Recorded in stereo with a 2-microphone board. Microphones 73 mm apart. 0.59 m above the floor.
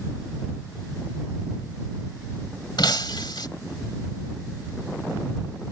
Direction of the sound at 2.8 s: 90° left.